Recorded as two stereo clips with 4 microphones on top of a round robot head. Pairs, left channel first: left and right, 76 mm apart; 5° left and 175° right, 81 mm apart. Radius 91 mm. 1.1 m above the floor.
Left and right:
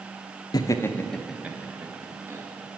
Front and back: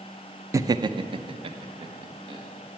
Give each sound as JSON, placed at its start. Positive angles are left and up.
{"t": 0.5, "sound": "laughter", "azimuth_deg": 130, "distance_m": 0.6}